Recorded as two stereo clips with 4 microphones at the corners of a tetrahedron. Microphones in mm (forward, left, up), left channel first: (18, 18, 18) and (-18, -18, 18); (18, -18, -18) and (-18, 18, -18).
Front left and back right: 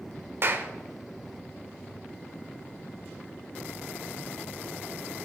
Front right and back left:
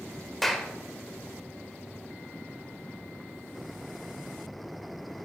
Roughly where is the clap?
Behind right.